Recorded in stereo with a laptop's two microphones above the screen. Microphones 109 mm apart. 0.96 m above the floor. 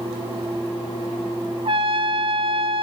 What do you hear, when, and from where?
1.6 s a trumpet: 55° right (ahead or behind), 2 m